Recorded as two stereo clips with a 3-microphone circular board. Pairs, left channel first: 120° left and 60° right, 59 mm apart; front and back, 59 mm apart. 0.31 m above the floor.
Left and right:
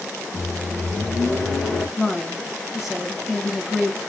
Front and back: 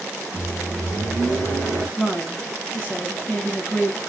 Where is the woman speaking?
25° left, 1.3 m.